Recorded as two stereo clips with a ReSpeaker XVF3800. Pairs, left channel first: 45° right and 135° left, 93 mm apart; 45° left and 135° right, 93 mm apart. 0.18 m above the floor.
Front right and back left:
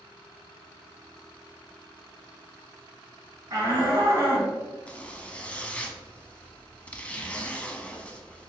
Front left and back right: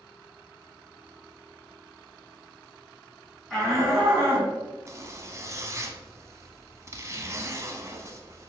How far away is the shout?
About 1.9 m.